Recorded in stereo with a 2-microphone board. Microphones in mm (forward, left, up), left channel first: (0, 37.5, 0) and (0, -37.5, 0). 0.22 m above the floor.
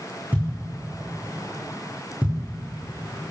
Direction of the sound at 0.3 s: 25° right (ahead or behind).